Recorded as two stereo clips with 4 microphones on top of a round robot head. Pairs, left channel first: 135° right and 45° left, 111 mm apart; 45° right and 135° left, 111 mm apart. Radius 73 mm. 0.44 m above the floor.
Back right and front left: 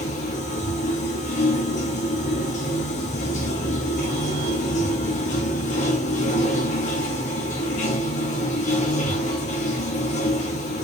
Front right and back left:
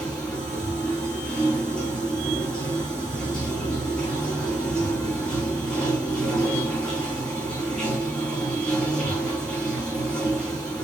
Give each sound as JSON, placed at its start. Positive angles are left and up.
{"t": 0.0, "sound": "running water", "azimuth_deg": -130, "distance_m": 3.5}